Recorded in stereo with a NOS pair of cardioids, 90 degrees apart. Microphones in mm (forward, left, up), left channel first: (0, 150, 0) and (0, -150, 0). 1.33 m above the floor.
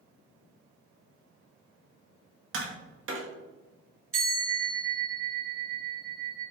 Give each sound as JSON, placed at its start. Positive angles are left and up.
{"t": 2.5, "sound": "tapping", "azimuth_deg": -45, "distance_m": 1.0}
{"t": 4.1, "sound": "a bell", "azimuth_deg": -45, "distance_m": 1.8}